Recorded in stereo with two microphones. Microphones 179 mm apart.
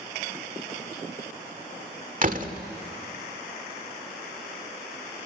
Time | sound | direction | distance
2.2 | a door slam | 50° right (ahead or behind) | 1.5 m